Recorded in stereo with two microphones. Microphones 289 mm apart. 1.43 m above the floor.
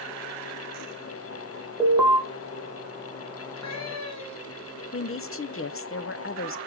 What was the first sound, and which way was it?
An alarm, 5° right (ahead or behind).